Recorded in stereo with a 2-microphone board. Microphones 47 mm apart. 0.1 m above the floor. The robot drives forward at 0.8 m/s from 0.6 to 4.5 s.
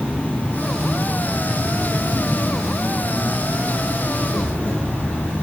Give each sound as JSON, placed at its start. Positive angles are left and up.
{"t": 0.0, "sound": "an insect", "side_deg": 30, "distance_m": 2.0}